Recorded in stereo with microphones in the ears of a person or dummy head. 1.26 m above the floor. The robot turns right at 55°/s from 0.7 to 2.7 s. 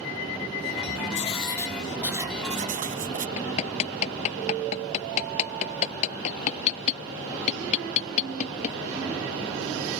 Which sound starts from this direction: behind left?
Writing, at 1.1 s.